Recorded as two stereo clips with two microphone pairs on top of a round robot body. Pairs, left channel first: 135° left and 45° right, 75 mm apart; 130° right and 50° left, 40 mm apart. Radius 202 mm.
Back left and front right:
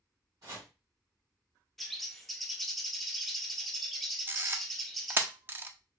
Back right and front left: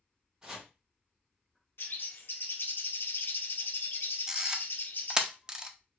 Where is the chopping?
20° right, 2 m.